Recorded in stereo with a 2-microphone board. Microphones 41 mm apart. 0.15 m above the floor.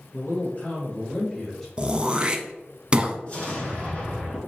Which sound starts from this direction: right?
Throat clearing, at 1.8 s.